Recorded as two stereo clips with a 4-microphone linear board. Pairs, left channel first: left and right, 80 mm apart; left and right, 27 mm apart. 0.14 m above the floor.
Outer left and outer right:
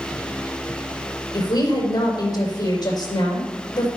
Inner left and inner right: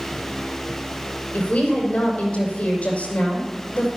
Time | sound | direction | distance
1.3 | a woman speaking | 50° left (ahead or behind) | 7.5 m